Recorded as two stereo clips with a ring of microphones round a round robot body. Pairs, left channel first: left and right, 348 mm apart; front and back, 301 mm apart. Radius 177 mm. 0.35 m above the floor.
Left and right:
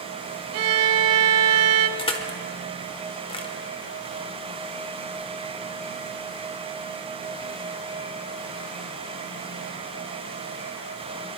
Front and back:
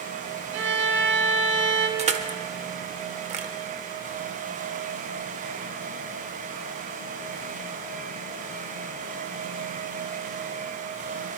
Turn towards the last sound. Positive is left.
turn(degrees=145)